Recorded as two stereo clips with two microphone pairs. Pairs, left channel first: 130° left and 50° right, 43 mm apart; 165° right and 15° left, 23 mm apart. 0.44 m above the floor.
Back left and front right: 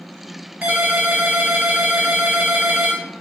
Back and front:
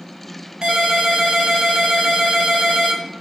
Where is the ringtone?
15° right, 0.7 m.